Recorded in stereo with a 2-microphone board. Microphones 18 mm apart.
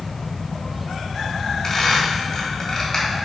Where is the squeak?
20° left (ahead or behind), 2.5 m.